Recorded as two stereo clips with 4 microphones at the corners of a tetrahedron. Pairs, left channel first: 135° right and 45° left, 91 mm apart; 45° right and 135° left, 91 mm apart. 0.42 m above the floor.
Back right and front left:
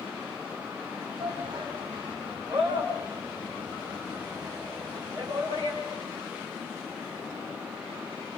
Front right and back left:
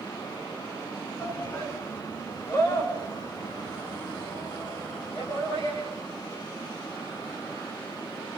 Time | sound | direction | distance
1.2 | a shout | 20° left | 3.5 m